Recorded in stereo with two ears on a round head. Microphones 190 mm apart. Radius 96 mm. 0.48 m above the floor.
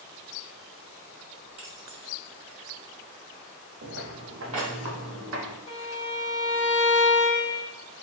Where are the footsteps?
50° right (ahead or behind), 0.7 m; by 5.6 s 60° right (ahead or behind), 2.5 m.